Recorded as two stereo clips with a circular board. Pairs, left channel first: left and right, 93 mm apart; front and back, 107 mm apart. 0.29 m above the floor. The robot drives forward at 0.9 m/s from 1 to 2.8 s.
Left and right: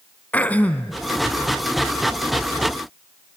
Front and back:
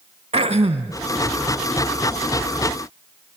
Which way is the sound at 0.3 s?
160° left.